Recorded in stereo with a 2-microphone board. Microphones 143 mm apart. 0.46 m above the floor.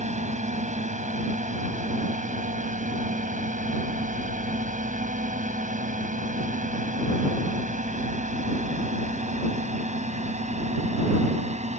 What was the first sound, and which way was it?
A drone, 55° right (ahead or behind).